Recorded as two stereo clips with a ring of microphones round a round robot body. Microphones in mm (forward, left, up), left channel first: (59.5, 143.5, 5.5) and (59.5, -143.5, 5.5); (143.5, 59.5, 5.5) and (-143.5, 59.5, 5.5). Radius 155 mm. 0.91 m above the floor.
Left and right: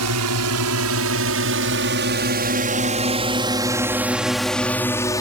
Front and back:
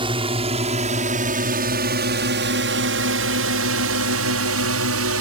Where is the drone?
110° right; by 5.2 s 165° left.